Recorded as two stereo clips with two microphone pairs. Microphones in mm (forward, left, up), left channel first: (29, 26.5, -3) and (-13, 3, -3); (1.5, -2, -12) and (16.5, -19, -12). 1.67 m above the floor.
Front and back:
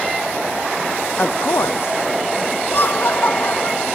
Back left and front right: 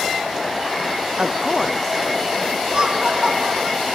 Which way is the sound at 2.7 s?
5° right.